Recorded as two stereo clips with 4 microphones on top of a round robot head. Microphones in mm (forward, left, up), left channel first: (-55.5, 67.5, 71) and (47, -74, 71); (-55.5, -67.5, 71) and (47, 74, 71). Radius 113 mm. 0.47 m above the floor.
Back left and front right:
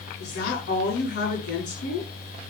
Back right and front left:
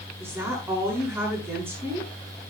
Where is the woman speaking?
130° left, 8 m.